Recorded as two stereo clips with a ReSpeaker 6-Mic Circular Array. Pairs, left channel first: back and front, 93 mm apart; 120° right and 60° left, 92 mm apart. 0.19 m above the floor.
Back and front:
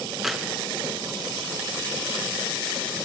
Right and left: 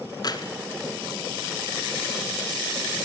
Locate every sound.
0.2 s keys jangling: 85° right, 1.9 m